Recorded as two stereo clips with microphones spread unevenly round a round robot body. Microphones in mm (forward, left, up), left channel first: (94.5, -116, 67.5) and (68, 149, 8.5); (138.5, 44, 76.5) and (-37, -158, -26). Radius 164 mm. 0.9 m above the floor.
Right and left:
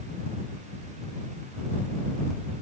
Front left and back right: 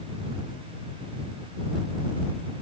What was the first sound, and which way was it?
Only background noise.